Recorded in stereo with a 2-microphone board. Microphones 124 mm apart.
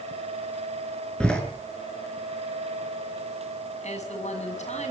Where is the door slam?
5° left (ahead or behind), 6.5 m.